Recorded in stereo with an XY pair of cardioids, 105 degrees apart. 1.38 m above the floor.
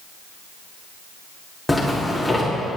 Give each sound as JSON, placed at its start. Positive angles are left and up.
{"t": 1.7, "sound": "a zipper", "azimuth_deg": 5, "distance_m": 3.5}